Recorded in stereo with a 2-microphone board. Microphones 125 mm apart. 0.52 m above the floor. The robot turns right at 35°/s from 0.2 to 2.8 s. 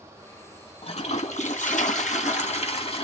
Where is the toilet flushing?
55° left, 2.5 m; by 3.0 s 125° left, 2.5 m.